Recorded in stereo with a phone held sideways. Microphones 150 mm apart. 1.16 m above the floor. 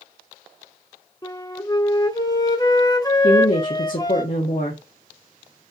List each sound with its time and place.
1.2 s a flute: 25° left (ahead or behind), 1.0 m
3.2 s a woman speaking: 60° left (ahead or behind), 1.2 m